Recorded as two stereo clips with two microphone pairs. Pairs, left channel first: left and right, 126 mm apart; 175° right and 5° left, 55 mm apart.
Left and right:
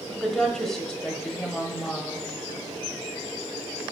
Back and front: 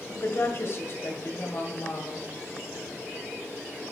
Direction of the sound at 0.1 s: Straight behind.